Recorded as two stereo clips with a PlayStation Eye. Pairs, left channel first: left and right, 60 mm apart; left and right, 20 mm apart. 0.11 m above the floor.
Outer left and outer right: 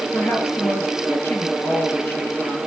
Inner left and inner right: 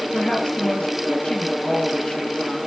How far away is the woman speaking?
About 2.5 m.